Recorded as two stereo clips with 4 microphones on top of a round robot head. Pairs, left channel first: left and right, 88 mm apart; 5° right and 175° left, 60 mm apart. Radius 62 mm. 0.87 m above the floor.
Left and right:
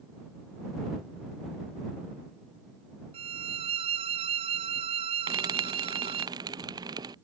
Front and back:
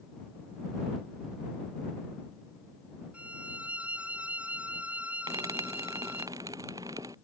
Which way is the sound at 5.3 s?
135° right.